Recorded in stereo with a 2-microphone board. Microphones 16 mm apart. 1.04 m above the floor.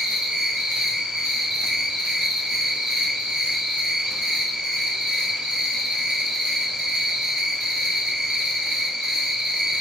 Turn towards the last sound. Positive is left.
turn(degrees=-75)  # may be behind; listen again after turning